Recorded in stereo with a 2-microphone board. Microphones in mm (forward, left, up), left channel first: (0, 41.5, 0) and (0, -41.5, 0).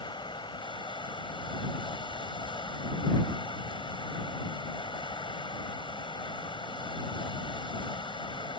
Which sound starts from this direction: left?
Running water, at 0.0 s.